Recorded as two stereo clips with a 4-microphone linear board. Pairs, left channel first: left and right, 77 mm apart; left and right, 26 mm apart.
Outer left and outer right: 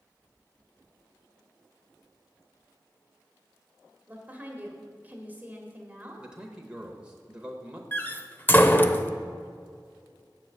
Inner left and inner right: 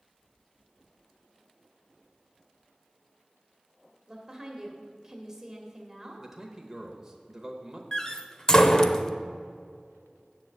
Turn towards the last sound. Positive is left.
turn(degrees=25)  # may be behind; listen again after turning